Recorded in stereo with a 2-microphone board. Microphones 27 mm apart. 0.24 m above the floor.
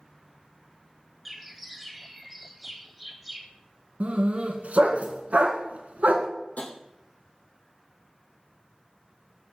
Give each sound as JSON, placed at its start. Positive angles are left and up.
{"t": 1.2, "sound": "a bird", "side_deg": -5, "distance_m": 1.0}
{"t": 4.0, "sound": "a dog barking", "side_deg": -65, "distance_m": 1.2}
{"t": 6.6, "sound": "tapping", "side_deg": 70, "distance_m": 1.8}